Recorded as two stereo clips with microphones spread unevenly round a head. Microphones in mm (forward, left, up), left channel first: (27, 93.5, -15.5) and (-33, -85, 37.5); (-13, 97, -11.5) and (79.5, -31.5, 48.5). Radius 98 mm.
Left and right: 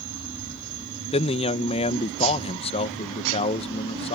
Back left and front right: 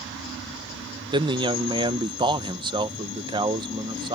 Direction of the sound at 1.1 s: 15° left.